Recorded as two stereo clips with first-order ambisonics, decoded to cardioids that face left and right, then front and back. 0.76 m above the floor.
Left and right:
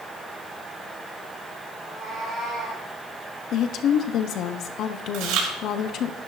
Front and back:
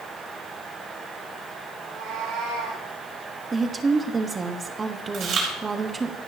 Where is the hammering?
No hammering in this recording.